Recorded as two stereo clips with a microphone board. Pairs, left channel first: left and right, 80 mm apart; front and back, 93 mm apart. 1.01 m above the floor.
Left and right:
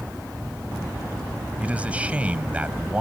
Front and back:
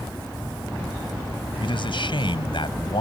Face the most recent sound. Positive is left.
turn(degrees=-15)